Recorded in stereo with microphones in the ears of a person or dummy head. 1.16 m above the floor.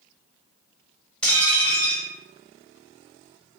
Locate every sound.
1.2 s dishes clattering: 5° left (ahead or behind), 1.3 m